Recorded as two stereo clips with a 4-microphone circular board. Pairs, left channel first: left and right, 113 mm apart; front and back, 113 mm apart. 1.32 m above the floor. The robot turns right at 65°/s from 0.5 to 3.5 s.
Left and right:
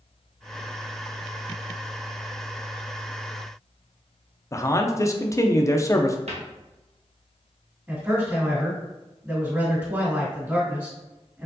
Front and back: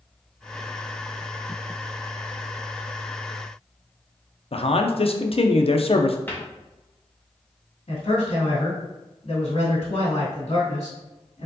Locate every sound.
4.5 s a man speaking: 30° left, 0.6 m
6.3 s a cupboard door: 70° right, 1.1 m
7.9 s a man speaking: 15° right, 2 m